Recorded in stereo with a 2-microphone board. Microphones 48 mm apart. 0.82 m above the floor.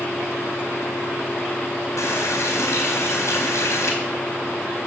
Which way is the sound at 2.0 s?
85° left.